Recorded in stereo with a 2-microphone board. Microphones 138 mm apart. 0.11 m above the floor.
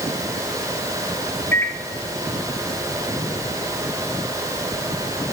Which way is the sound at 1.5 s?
15° left (ahead or behind).